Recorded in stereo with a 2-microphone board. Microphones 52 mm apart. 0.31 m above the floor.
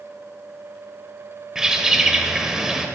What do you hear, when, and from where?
1.6 s a bird: 10° right (ahead or behind), 0.7 m